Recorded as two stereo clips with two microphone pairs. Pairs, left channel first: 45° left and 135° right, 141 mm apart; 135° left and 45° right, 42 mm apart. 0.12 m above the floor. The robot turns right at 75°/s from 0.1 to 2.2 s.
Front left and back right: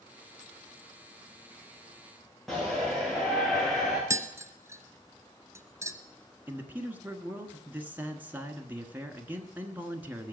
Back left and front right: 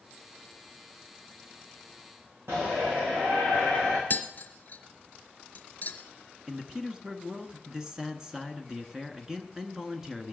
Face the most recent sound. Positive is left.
turn(degrees=-90)